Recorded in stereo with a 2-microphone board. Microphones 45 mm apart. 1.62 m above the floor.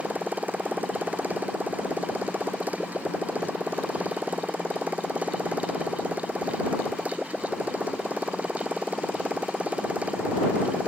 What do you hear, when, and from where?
0.0 s a motorcycle: 40° right (ahead or behind); by 10.9 s 30° right (ahead or behind)